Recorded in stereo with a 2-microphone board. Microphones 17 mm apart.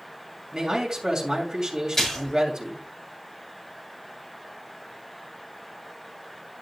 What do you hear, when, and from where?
0.5 s a man speaking: 40° right (ahead or behind), 3 m
1.9 s a splash: 20° left (ahead or behind), 5 m